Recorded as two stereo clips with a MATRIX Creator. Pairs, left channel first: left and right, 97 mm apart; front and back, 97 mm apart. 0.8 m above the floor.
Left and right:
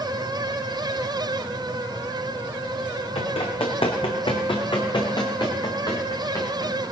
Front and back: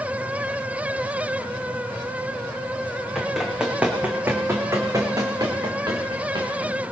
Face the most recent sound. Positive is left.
turn(degrees=145)